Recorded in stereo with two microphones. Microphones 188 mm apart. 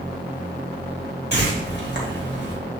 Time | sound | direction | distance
1.3 | a whoosh | 65° left (ahead or behind) | 2 m